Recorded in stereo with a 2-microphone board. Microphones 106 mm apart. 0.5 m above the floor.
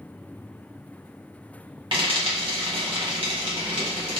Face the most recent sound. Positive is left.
turn(degrees=-55)  # may be behind; listen again after turning